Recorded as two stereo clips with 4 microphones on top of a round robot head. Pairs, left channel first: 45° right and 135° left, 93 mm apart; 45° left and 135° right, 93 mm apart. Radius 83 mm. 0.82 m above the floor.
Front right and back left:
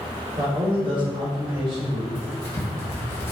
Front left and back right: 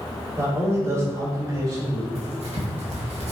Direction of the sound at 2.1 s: 115° right.